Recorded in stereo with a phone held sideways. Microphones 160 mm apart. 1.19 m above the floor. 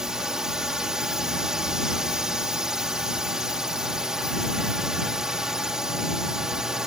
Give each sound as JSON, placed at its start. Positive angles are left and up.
{"t": 0.0, "sound": "a drone", "side_deg": -5}